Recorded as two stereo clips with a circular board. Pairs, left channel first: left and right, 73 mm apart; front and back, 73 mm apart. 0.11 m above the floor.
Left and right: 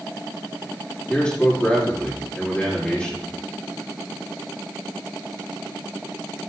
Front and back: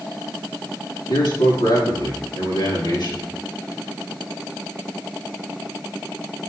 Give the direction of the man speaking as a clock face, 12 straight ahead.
11 o'clock.